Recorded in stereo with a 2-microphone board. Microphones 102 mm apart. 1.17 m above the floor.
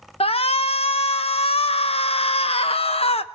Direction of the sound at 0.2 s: 75° left (ahead or behind).